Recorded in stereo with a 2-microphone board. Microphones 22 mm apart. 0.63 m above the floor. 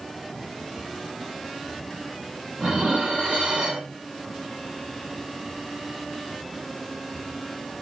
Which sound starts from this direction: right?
Dishes clattering, at 2.6 s.